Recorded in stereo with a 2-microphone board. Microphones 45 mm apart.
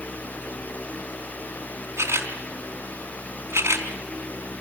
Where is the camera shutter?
75° right (ahead or behind), 4.5 m.